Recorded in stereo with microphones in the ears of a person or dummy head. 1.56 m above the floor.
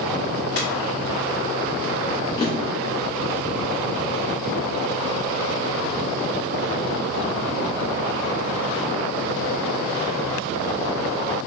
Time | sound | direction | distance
0.6 | a ringtone | 45° left (ahead or behind) | 1.8 m
2.4 | a drawer | 20° left (ahead or behind) | 0.8 m